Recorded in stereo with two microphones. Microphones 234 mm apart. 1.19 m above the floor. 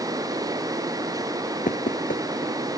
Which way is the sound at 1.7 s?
35° left (ahead or behind).